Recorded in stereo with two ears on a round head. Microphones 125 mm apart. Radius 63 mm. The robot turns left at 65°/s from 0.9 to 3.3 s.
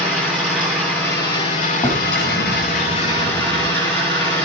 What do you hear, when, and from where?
0.0 s an engine running: 175° left, 9 m; by 4.5 s 15° left, 9 m
1.8 s a drawer: 35° left, 3 m; by 3.7 s 65° right, 3 m